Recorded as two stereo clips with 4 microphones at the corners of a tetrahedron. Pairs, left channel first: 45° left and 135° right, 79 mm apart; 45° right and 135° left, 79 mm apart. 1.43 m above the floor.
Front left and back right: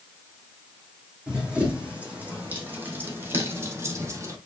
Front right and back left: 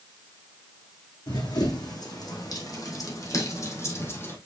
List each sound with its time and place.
1.3 s running footsteps: 60° right, 3.5 m; by 4.4 s 100° right, 2.5 m